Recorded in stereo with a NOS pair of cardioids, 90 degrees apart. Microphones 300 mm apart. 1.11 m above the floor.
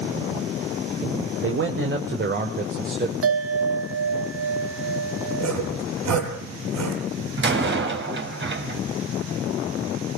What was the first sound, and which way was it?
A man speaking, 45° right.